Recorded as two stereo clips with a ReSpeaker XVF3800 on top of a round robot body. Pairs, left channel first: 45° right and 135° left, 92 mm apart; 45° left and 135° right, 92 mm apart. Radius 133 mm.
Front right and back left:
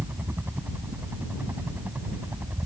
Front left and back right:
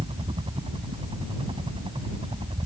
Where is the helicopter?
155° right; by 2.7 s 160° right.